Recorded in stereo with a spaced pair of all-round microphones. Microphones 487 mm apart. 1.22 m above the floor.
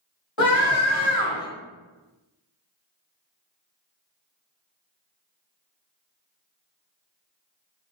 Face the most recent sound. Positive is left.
turn(degrees=65)  # may be behind; listen again after turning